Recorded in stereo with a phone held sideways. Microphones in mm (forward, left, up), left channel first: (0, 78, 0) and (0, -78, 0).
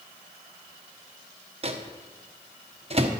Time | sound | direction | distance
1.6 | a microwave | 40° right (ahead or behind) | 0.9 m